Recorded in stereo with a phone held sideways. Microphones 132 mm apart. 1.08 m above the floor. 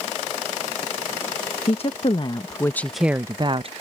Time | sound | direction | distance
1.7 | a woman speaking | 50° left (ahead or behind) | ?